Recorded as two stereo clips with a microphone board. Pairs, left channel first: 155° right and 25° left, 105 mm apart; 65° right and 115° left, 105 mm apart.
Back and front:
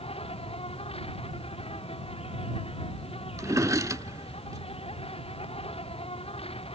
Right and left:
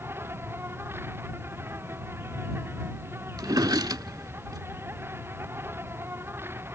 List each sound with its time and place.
0.0 s an insect: straight behind
3.4 s a drawer: 75° left